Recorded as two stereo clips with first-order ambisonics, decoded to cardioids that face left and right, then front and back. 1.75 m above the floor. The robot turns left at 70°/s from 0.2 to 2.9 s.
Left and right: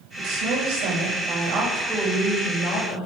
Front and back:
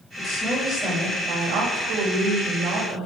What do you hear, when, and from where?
0.2 s a woman speaking: 55° right, 9 m; by 3.1 s 115° left, 9 m